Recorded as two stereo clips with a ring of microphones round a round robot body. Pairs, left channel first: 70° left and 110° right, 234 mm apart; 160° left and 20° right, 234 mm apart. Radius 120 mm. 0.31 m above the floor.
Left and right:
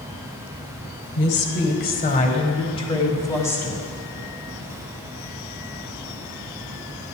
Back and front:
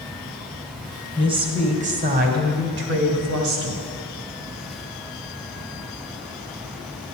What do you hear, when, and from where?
1.2 s a woman speaking: 45° left, 1.6 m; by 3.8 s 15° right, 1.8 m